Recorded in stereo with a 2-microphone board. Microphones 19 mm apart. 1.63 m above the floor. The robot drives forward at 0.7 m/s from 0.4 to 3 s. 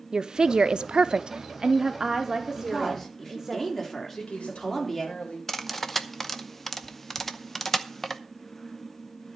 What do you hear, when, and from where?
0.1 s a woman speaking: 40° right (ahead or behind), 0.6 m; by 3.6 s 15° right (ahead or behind), 1.5 m
2.6 s a woman speaking: 20° left (ahead or behind), 3 m; by 5.2 s 15° left (ahead or behind), 3.5 m
4.2 s a woman speaking: 90° left, 3 m
5.5 s cutlery clinking: 15° left (ahead or behind), 0.8 m